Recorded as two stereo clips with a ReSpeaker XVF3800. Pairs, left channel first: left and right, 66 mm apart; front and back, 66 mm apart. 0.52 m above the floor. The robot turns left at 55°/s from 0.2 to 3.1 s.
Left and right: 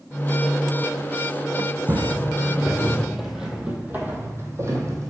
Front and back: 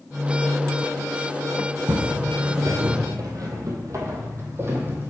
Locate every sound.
1.9 s footsteps: 145° right, 1.5 m; by 5.1 s 120° right, 1.6 m